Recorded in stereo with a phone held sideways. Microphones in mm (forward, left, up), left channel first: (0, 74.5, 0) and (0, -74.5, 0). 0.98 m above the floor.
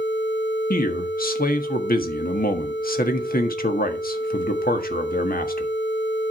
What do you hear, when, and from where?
0.7 s a man speaking: 75° left (ahead or behind), 1.5 m